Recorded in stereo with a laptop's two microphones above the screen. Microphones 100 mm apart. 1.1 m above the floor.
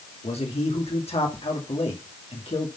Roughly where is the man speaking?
Left.